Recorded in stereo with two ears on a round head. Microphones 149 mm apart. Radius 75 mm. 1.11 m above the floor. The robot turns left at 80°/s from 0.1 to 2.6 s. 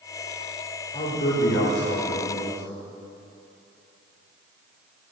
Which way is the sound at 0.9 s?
140° left.